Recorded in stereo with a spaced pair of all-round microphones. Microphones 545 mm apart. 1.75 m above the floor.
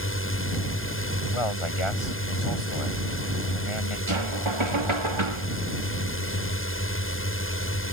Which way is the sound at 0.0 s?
20° left (ahead or behind).